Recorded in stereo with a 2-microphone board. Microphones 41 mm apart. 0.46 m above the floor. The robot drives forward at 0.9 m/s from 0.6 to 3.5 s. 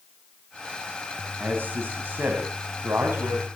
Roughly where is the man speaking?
Right.